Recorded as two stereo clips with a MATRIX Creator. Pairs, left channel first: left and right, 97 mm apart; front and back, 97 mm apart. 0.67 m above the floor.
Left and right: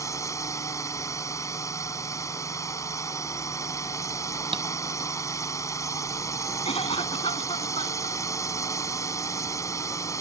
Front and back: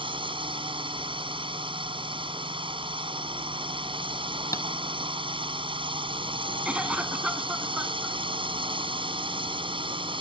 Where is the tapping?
60° right.